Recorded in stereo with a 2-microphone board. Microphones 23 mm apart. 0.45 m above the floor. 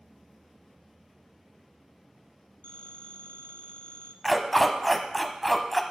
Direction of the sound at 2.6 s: 55° left (ahead or behind).